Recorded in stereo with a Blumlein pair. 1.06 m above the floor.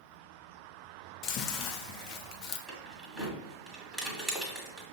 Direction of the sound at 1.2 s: 35° left.